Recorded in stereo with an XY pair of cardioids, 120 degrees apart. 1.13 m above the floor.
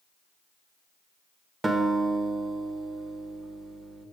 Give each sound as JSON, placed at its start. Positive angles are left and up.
{"t": 1.6, "sound": "a guitar", "azimuth_deg": -20, "distance_m": 0.9}